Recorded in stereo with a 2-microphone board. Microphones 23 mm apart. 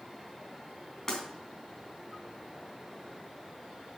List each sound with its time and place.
1.1 s breaking glass: 20° left (ahead or behind), 3.5 m